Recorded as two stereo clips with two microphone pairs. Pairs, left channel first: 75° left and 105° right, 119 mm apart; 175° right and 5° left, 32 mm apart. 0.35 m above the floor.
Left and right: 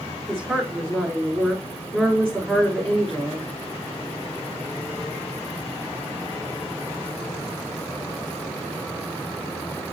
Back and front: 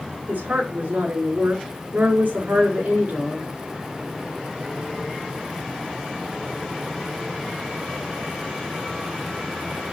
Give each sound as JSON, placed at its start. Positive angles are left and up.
{"t": 0.3, "sound": "a woman speaking", "azimuth_deg": -15, "distance_m": 4.0}